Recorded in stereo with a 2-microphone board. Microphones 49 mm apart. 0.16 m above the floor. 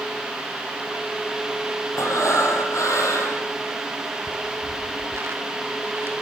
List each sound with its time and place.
2.0 s breathing: 75° left (ahead or behind), 6.5 m
4.3 s footsteps: 65° right (ahead or behind), 0.9 m; by 6.1 s 50° right (ahead or behind), 2.5 m